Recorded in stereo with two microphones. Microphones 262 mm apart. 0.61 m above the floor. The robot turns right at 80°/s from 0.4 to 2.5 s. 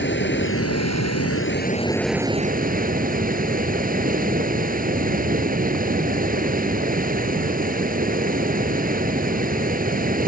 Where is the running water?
45° left; by 10.3 s 145° right.